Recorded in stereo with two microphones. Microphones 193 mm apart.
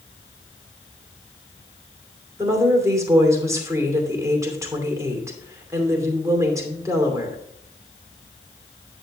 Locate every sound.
2.4 s a woman speaking: 15° right (ahead or behind), 2.5 m